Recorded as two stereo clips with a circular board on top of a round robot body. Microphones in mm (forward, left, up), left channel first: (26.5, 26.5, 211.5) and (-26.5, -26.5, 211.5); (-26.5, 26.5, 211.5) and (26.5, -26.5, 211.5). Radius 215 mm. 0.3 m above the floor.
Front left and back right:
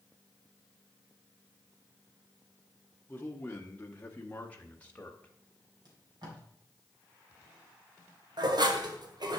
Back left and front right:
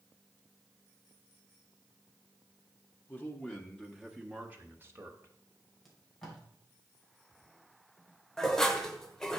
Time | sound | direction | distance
3.1 | a man speaking | 95° left | 1.3 m
5.8 | tape being pulled | 140° right | 3 m
8.4 | dishes clattering | 145° right | 1.3 m